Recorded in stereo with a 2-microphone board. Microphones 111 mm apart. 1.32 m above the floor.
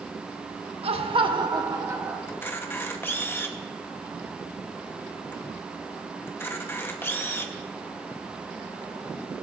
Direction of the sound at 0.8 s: 65° right (ahead or behind).